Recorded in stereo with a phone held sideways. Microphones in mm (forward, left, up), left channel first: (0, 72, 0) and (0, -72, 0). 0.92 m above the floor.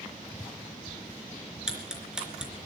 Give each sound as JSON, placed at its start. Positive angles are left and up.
{"t": 1.7, "sound": "ticking", "side_deg": -5, "distance_m": 3.5}